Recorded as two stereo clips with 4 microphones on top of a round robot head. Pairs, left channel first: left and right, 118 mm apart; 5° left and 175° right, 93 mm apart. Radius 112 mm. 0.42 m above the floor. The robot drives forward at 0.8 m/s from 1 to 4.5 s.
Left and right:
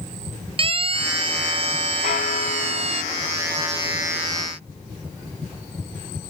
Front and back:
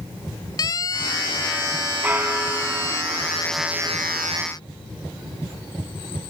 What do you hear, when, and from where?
0.6 s a siren: 50° right; by 3.0 s 55° right
2.0 s a bell: 115° left; by 4.0 s 135° left